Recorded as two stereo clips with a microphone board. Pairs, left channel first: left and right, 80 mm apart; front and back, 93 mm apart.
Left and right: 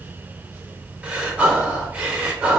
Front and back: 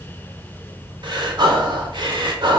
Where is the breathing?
160° right, 0.6 m.